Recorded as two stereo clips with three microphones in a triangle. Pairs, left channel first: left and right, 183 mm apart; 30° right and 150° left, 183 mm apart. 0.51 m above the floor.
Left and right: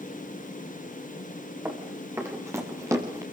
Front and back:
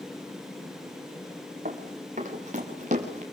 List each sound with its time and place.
1.6 s running footsteps: 165° right, 5.5 m; by 3.2 s 160° right, 4.5 m